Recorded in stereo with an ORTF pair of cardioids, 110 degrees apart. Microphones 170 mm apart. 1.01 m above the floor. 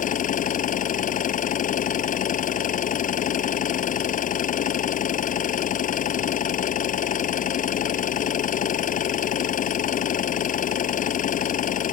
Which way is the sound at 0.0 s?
50° left.